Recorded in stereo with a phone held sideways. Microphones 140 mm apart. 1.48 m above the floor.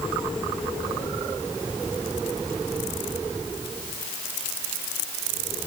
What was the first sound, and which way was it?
Only background noise.